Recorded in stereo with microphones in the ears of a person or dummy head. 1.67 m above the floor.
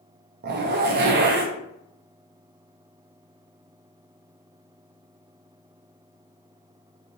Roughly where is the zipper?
Right.